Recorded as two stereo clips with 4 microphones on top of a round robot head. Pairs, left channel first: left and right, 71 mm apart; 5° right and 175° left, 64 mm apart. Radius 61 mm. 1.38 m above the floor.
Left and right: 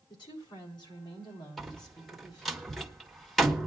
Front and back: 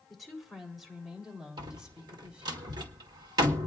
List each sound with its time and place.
0.1 s a woman speaking: 85° left, 3.5 m; by 2.6 s 105° left, 4 m
1.6 s a door slam: straight behind, 1.5 m